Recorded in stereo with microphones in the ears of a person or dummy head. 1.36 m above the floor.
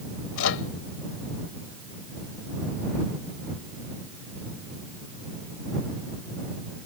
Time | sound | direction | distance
0.4 | a microwave | 80° left | ?